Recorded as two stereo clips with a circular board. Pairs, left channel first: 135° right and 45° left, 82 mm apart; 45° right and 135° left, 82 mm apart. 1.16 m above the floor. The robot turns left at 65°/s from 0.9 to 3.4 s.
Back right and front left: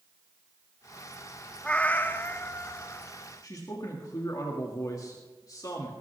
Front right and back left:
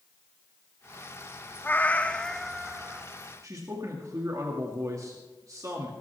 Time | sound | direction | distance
1.6 | a cat meowing | 70° right | 0.6 m
3.4 | a man speaking | 175° right | 2 m